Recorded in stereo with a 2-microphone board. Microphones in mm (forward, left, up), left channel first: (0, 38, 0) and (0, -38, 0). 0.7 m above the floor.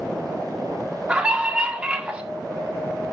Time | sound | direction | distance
1.1 | a scream | 15° right (ahead or behind) | 1.6 m